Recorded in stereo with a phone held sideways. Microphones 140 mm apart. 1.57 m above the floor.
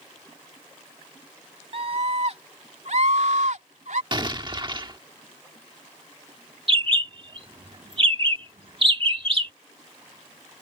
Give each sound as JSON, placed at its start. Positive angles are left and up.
{"t": 1.7, "sound": "a scream", "side_deg": -45}
{"t": 4.1, "sound": "an explosion", "side_deg": -35}
{"t": 6.7, "sound": "a bird", "side_deg": -40}